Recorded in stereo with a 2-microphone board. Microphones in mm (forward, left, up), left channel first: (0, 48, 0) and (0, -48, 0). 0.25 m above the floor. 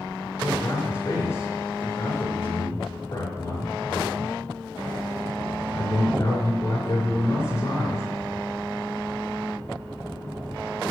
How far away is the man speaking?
About 3 m.